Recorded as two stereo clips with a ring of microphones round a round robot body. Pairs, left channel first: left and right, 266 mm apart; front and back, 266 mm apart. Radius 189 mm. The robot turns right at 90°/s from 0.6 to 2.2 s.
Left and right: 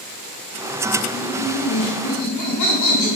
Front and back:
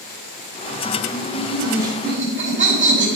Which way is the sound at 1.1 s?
35° left.